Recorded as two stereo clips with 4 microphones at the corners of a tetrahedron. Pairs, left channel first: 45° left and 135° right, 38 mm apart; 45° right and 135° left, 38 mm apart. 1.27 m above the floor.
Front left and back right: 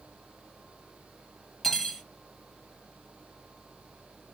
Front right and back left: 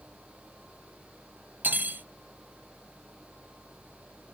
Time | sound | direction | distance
1.6 | cutlery clinking | 125° left | 0.9 m